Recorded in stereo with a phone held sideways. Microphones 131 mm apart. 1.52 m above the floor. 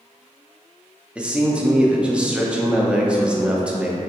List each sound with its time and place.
1.1 s a man speaking: 10° right (ahead or behind), 0.5 m